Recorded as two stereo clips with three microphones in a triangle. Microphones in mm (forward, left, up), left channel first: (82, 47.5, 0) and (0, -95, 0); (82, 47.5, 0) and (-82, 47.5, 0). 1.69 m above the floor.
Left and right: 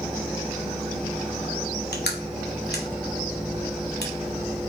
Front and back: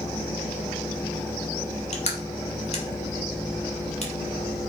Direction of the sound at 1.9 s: 50° left.